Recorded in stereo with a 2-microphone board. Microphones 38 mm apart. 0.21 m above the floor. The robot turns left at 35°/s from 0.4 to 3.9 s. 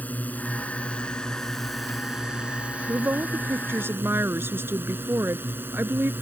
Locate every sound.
0.0 s a drone: 50° left; by 6.2 s 75° right
2.9 s a woman speaking: 65° right; by 6.1 s 105° right